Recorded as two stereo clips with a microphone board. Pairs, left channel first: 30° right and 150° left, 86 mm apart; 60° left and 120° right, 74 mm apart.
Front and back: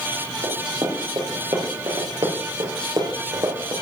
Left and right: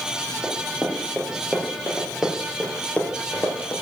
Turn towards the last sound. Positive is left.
turn(degrees=115)